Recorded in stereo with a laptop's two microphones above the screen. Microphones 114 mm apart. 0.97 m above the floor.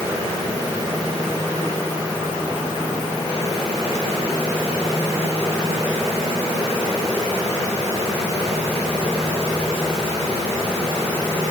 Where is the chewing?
I don't hear chewing.